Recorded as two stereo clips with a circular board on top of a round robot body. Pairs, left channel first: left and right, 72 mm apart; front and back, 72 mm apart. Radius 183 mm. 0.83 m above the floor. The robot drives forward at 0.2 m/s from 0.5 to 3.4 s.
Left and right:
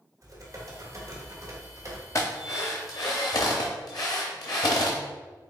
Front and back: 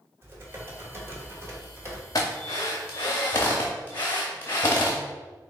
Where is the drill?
40° left, 0.7 m; by 5.0 s 60° left, 0.5 m.